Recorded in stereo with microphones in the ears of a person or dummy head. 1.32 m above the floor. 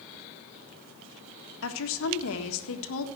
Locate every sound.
1.6 s a woman speaking: 80° left, 1.5 m